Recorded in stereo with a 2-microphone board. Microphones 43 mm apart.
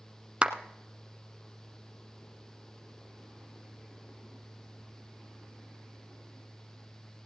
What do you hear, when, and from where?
0.4 s a clap: 25° right (ahead or behind), 1.3 m